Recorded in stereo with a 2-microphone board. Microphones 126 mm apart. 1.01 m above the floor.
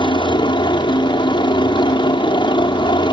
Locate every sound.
0.0 s a helicopter: 40° left (ahead or behind)